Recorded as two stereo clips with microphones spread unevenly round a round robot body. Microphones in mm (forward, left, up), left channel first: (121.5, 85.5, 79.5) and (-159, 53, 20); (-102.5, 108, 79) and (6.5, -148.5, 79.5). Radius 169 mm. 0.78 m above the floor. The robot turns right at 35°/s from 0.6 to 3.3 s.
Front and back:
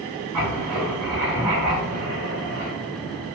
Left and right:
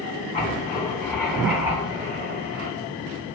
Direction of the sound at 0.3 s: 175° left.